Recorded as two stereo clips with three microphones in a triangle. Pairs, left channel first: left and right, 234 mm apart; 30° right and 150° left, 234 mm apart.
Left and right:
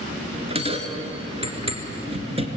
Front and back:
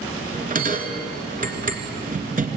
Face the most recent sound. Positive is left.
turn(degrees=-155)